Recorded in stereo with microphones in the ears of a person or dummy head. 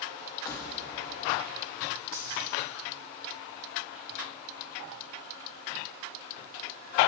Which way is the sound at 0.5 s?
15° left (ahead or behind).